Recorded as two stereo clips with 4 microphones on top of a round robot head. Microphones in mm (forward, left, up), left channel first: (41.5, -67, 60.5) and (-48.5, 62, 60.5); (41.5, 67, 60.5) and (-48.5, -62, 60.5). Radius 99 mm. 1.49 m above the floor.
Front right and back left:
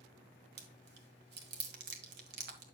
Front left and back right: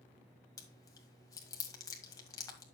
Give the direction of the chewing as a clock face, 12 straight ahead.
8 o'clock.